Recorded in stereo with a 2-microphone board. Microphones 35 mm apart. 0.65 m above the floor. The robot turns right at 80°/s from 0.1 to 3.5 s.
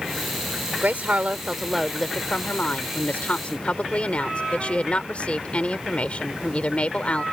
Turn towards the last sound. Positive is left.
turn(degrees=135)